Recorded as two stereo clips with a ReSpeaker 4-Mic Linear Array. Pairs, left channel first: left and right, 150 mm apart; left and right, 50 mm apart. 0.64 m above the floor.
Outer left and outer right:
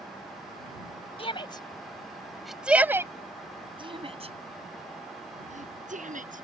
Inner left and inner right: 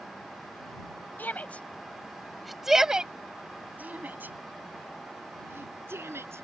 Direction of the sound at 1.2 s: 35° left (ahead or behind).